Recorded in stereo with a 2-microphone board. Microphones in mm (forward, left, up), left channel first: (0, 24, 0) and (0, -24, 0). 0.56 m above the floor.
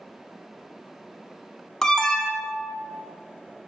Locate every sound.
1.8 s an alarm: 10° left (ahead or behind), 0.6 m